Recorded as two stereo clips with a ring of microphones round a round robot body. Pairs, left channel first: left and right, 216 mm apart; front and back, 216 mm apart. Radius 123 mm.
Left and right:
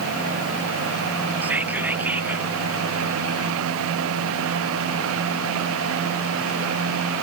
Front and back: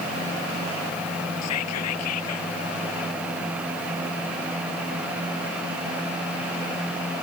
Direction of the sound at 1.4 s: 5° right.